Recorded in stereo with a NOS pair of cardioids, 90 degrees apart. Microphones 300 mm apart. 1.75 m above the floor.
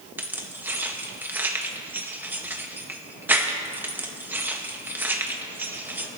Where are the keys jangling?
5° right, 1.9 m.